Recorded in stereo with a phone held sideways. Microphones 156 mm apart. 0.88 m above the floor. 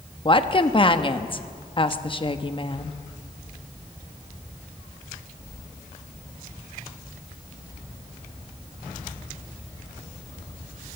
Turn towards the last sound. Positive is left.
turn(degrees=35)  # may be behind; listen again after turning